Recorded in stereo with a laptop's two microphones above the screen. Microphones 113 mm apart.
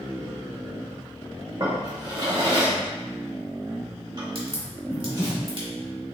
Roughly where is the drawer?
Right.